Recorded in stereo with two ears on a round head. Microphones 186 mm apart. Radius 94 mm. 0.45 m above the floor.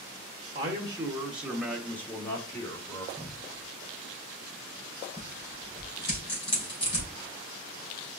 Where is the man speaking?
20° right (ahead or behind), 0.9 m; by 3.1 s 20° left (ahead or behind), 1.3 m.